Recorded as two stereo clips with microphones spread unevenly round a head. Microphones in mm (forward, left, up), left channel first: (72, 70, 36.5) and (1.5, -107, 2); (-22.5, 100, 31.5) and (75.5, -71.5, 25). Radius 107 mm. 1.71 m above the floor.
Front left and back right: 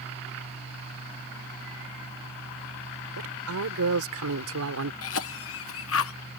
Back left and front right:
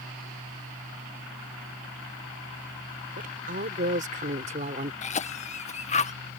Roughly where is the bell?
I don't hear a bell.